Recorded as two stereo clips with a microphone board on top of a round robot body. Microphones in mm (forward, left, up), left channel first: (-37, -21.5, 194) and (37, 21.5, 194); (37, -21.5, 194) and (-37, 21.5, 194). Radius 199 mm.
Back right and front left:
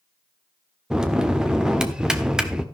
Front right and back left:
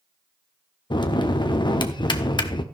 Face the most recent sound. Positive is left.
turn(degrees=-50)